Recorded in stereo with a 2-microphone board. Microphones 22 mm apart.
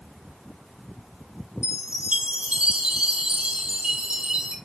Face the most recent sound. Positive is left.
turn(degrees=-50)  # may be behind; listen again after turning